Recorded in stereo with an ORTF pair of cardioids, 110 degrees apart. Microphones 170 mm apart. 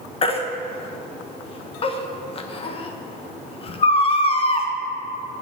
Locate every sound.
0.2 s a baby crying: 35° left, 1.1 m